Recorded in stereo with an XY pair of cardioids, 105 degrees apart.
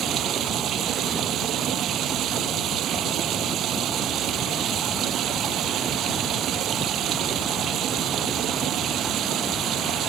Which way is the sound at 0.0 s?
70° right.